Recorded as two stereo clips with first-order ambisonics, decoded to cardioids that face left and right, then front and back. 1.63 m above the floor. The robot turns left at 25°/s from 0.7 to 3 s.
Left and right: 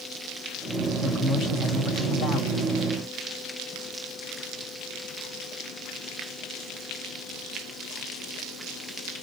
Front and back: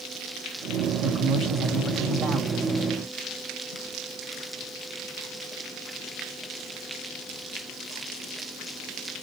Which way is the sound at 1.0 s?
150° left.